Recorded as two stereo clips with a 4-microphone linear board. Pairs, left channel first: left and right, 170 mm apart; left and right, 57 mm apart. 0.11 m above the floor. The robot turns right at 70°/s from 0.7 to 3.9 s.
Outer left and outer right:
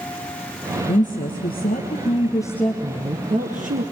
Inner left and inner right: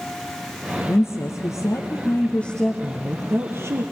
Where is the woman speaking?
50° left, 2.5 m; by 3.8 s 105° right, 2.5 m.